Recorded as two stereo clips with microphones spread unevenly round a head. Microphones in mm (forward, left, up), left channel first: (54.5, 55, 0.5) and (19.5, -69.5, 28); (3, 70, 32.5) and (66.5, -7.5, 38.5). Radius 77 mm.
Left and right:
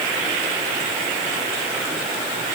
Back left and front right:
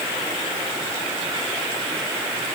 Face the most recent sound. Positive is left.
No sound to turn to.